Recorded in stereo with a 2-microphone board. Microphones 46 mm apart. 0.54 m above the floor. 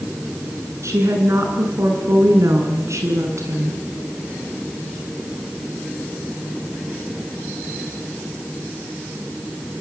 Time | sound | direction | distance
0.8 | a woman speaking | 75° right (ahead or behind) | 8.5 m